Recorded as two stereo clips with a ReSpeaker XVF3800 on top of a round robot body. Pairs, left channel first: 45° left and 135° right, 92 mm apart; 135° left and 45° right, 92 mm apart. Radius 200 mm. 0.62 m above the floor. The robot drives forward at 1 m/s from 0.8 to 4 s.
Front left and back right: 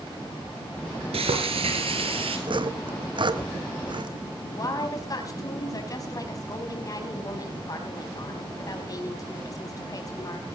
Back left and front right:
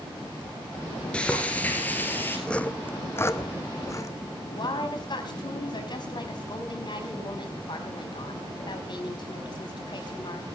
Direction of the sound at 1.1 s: 145° right.